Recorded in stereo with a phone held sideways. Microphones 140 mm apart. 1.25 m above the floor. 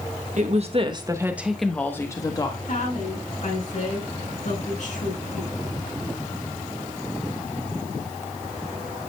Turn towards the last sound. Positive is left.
turn(degrees=60)  # may be behind; listen again after turning